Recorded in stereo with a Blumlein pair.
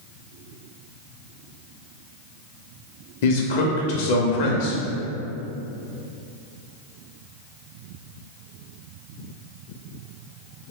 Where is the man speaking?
50° left, 0.6 m.